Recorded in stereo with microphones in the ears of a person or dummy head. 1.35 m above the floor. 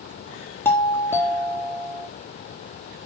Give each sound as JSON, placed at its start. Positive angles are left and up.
{"t": 0.7, "sound": "a doorbell", "side_deg": 10, "distance_m": 2.0}